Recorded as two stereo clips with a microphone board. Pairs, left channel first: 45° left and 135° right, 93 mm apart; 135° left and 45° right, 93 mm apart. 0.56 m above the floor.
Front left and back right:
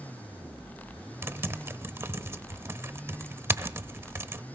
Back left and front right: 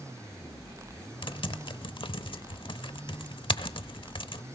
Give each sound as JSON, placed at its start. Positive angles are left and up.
{"t": 1.2, "sound": "typing on a keyboard", "azimuth_deg": 160, "distance_m": 0.8}